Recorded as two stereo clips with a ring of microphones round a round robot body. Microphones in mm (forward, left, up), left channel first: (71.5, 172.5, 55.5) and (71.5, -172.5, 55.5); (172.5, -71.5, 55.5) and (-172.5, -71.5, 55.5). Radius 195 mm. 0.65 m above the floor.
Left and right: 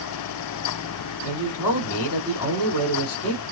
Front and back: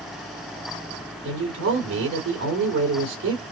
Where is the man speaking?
130° left, 2 m.